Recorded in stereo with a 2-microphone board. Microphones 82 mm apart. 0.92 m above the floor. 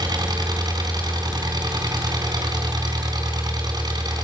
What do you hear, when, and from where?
0.0 s an engine running: 55° right (ahead or behind), 4 m